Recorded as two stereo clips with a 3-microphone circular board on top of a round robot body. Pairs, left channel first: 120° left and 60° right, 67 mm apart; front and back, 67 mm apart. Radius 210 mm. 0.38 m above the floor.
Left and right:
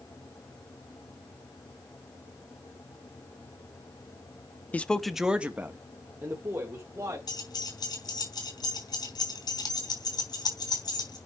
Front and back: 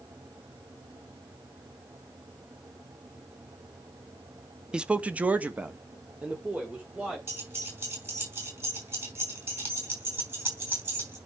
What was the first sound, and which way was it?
A man speaking, 125° left.